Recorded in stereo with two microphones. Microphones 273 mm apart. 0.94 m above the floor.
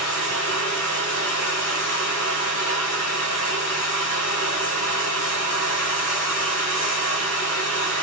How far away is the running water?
About 4 m.